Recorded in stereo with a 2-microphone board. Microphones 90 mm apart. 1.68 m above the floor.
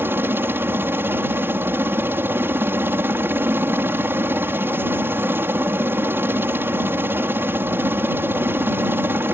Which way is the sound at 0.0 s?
25° right (ahead or behind).